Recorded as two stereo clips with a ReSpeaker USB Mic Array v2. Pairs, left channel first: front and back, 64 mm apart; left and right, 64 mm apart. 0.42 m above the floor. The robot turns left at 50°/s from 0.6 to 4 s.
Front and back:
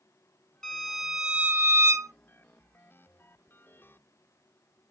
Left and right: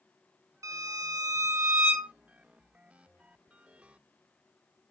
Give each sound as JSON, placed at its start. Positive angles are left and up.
{"t": 0.6, "sound": "a violin", "azimuth_deg": -85, "distance_m": 0.9}